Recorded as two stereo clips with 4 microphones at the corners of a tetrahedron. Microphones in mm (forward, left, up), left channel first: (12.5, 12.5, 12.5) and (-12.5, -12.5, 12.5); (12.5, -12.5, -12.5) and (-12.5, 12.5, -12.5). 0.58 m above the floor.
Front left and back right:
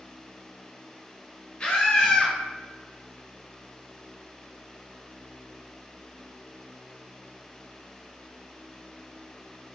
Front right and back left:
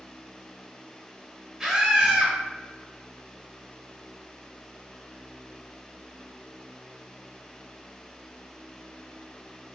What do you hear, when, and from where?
1.6 s a scream: 80° left, 1.0 m